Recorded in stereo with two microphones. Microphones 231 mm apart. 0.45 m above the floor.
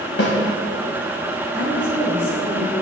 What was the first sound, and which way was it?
A snare drum, 65° left (ahead or behind).